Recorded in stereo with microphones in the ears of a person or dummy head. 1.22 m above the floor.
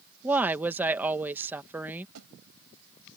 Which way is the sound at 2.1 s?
85° right.